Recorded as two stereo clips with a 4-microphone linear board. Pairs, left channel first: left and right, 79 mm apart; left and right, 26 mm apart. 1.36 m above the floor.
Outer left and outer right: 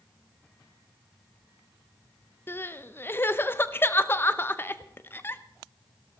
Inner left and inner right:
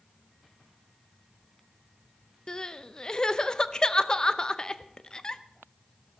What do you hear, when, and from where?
2.5 s crying: 30° left (ahead or behind), 0.6 m